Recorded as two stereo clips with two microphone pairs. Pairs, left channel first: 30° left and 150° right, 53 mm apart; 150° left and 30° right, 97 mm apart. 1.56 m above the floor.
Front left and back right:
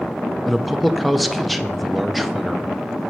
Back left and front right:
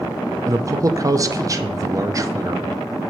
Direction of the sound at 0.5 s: 60° right.